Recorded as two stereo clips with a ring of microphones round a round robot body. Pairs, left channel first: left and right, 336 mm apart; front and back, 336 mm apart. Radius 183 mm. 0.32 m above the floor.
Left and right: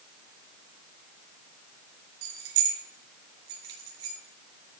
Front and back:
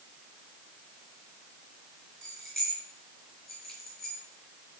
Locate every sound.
2.2 s keys jangling: 90° right, 3.5 m